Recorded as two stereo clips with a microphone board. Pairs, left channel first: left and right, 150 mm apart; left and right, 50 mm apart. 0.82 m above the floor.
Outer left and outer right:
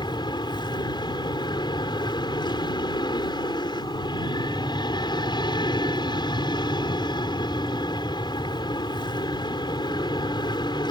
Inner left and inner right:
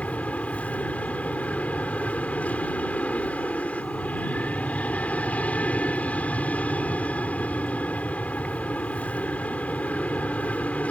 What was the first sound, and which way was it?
An aircraft, 30° left (ahead or behind).